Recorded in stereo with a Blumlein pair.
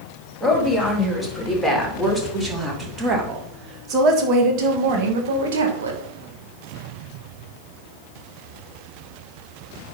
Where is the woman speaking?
5° left, 3.5 m; by 6.0 s 65° right, 2 m.